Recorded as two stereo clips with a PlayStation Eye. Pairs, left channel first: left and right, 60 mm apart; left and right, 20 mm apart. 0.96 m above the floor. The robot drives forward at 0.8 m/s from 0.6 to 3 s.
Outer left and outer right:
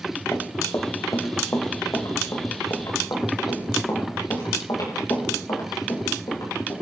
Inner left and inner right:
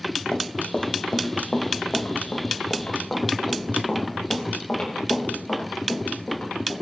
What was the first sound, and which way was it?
Running footsteps, 40° left (ahead or behind).